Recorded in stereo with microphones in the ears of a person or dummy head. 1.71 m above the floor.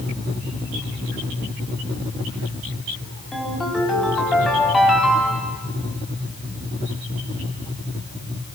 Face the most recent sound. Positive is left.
turn(degrees=5)  # may be behind; listen again after turning